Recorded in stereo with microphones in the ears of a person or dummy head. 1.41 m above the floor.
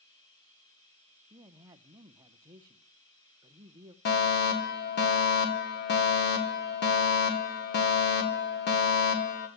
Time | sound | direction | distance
0.0 | running water | 20° left (ahead or behind) | 6 m
1.3 | a man speaking | 20° right (ahead or behind) | 0.5 m
4.0 | a fire alarm | 50° left (ahead or behind) | 2 m